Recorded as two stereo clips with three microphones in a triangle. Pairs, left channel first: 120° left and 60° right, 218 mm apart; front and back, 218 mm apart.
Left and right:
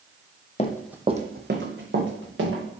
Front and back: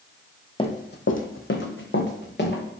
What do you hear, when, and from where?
0.6 s running footsteps: 60° left, 0.5 m; by 2.6 s 40° right, 1.8 m